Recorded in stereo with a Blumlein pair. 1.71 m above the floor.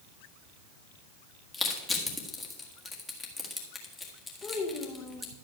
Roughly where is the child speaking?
Ahead left.